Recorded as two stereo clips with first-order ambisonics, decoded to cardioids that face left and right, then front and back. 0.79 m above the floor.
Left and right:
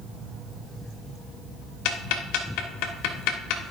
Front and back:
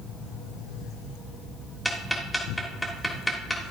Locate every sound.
1.9 s ticking: 85° left, 1.2 m